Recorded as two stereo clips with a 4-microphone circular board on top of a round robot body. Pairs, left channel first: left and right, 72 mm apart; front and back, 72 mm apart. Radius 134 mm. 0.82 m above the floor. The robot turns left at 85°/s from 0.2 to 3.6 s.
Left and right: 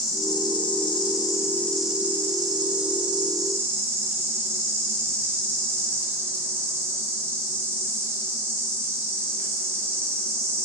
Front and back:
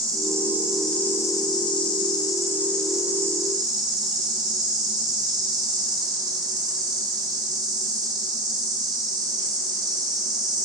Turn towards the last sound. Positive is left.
turn(degrees=-150)